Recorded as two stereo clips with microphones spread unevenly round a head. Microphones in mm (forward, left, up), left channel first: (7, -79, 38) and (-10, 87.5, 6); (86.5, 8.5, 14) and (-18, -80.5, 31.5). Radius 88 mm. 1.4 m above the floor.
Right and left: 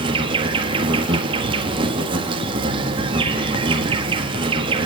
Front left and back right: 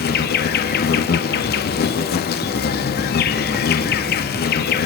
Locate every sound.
0.0 s an insect: 30° left, 1.7 m